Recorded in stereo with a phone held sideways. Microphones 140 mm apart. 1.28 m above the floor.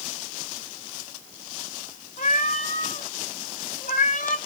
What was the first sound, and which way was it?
A cat meowing, 60° left (ahead or behind).